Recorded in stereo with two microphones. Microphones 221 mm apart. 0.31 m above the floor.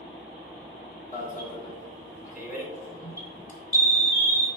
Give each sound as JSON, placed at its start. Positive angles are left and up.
{"t": 1.1, "sound": "an alarm", "side_deg": 35, "distance_m": 2.0}